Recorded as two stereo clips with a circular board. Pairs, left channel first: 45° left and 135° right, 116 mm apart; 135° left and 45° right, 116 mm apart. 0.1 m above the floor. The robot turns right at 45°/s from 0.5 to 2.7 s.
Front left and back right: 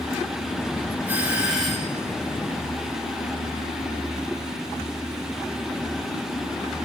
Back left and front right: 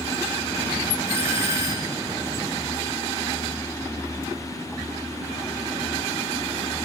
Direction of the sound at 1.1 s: 75° right.